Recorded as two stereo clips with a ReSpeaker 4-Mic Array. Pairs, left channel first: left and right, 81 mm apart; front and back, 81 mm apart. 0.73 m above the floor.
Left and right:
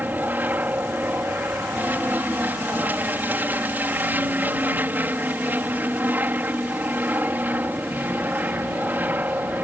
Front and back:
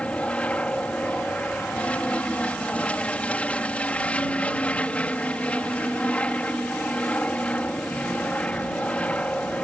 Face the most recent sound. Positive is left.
turn(degrees=-55)